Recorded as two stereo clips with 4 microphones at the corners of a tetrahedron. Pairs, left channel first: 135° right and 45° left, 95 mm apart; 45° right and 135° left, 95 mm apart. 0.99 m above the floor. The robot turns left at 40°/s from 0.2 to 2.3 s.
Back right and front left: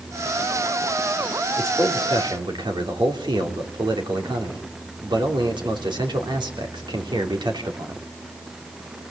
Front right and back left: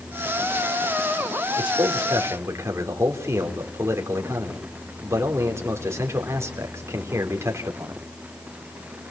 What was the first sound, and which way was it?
A man speaking, 105° left.